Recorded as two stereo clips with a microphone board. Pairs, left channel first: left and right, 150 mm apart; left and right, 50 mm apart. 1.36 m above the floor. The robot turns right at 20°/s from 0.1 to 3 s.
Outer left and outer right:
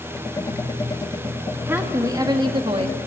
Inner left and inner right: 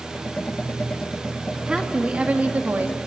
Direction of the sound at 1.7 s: 15° right (ahead or behind).